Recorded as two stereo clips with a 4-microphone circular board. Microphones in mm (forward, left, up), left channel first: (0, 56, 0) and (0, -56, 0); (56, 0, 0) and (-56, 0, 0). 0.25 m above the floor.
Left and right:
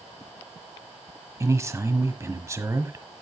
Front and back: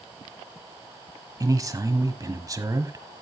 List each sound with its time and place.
1.4 s a man speaking: 140° right, 1.4 m